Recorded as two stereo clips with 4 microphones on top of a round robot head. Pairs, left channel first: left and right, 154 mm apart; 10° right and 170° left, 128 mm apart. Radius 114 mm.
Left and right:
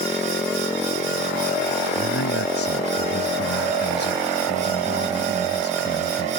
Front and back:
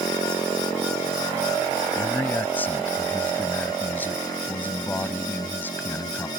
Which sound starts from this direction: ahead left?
A man speaking, at 1.9 s.